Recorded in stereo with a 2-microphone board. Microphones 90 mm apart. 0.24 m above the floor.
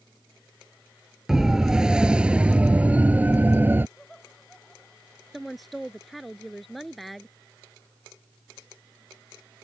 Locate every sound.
1.3 s a siren: 5° right (ahead or behind); by 3.9 s 25° right (ahead or behind)
4.0 s laughter: 5° left (ahead or behind)
5.3 s a woman speaking: centre (ahead or behind)